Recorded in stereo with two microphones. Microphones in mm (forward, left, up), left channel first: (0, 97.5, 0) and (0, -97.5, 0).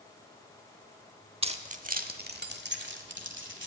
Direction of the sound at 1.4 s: 30° right (ahead or behind).